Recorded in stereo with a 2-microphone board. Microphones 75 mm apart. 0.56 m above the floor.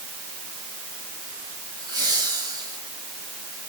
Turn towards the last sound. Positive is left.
turn(degrees=-65)  # may be behind; listen again after turning